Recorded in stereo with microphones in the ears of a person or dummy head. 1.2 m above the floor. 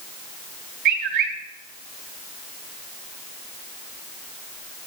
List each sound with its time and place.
0.8 s a bird: 50° right (ahead or behind), 3 m